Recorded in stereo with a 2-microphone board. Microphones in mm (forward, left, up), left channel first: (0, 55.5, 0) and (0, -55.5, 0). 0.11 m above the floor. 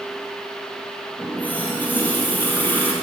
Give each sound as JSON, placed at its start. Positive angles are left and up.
{"t": 1.2, "sound": "a running tap", "side_deg": 15, "distance_m": 1.7}